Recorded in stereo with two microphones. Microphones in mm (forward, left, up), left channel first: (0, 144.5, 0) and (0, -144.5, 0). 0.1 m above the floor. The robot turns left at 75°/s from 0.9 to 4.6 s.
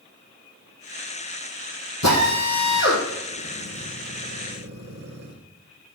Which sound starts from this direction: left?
A drill, at 2.0 s.